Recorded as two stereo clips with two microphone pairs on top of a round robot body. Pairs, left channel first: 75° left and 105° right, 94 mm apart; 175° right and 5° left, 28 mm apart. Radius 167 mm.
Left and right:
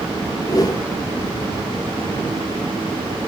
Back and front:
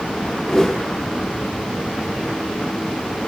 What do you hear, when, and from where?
0.5 s a whoosh: 125° left, 1.2 m